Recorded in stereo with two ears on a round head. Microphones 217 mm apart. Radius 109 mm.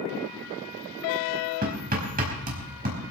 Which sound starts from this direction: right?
Hammering, at 1.6 s.